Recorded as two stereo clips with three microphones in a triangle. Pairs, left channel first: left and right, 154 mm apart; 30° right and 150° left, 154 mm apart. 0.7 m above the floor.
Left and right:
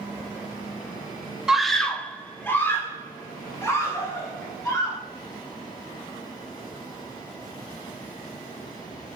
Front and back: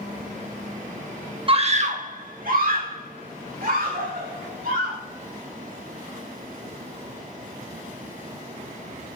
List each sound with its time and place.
1.5 s a scream: 175° right, 0.8 m; by 5.0 s 155° left, 4 m